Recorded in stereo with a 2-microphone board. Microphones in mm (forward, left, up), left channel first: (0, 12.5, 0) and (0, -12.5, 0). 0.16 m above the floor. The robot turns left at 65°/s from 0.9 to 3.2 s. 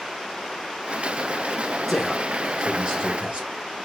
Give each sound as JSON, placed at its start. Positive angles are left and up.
{"t": 1.9, "sound": "a man speaking", "azimuth_deg": 10, "distance_m": 1.7}